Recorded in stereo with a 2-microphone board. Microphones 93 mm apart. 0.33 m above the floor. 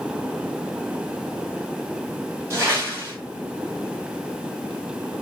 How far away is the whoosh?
About 1.7 m.